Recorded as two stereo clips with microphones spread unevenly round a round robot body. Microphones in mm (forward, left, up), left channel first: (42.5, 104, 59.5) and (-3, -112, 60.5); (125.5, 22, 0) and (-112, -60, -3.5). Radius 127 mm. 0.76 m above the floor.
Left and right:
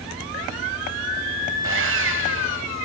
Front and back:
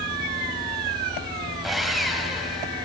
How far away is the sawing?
About 3 m.